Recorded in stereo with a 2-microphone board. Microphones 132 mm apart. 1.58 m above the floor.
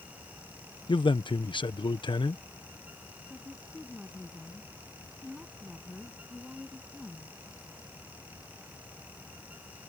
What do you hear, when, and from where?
0.9 s a man speaking: 40° left (ahead or behind)
3.3 s a woman speaking: 5° right (ahead or behind)